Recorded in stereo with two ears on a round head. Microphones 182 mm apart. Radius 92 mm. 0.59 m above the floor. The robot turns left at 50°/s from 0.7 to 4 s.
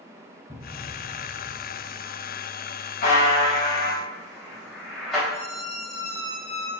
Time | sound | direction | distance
0.5 | a thud | 175° left | 2.5 m
3.0 | a buzzer | 50° left (ahead or behind) | 3.5 m
5.3 | a squeak | 15° left (ahead or behind) | 3.5 m